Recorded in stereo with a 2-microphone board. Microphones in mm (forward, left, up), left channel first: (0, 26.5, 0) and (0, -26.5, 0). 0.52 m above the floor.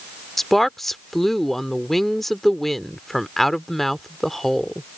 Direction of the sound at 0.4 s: 5° left (ahead or behind).